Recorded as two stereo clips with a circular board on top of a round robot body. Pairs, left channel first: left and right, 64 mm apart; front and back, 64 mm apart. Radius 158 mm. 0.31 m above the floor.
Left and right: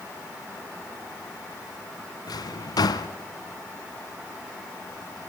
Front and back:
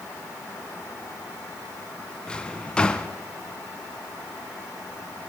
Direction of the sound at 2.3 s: 75° left.